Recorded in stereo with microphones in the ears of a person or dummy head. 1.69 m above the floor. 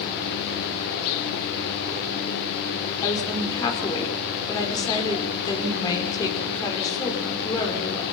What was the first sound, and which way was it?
A woman speaking, 20° left (ahead or behind).